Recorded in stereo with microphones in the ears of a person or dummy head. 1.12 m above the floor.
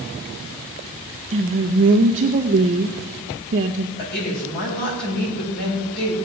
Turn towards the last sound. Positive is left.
turn(degrees=55)  # may be behind; listen again after turning